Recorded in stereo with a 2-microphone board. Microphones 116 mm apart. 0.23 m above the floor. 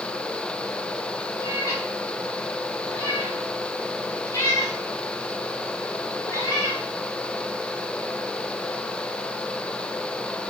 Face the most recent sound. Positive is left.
turn(degrees=25)  # may be behind; listen again after turning